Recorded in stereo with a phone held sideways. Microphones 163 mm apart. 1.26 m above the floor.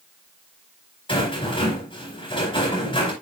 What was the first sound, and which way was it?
A rattle, 30° left (ahead or behind).